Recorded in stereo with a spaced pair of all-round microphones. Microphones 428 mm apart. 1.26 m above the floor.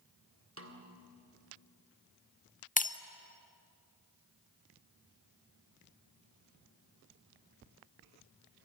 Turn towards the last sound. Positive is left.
turn(degrees=20)  # may be behind; listen again after turning